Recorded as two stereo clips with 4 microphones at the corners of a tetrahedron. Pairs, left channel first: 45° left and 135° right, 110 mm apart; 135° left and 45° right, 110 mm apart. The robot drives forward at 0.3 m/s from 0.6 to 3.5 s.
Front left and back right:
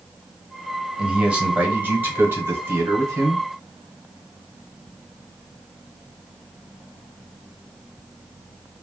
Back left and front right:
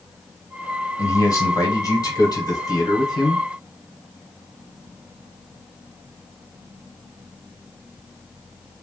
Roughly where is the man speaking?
Behind left.